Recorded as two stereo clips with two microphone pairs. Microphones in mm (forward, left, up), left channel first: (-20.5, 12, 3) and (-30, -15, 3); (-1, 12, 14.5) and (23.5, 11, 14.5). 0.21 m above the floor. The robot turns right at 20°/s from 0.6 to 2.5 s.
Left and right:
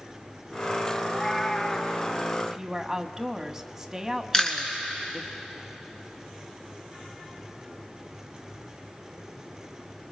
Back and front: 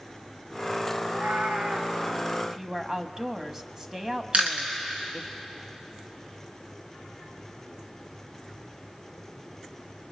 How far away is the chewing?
About 2.5 m.